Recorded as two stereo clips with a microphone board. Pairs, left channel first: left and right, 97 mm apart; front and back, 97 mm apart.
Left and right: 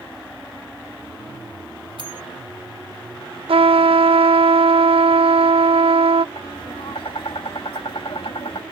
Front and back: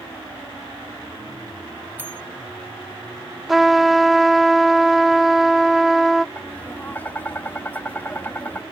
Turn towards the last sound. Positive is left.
turn(degrees=70)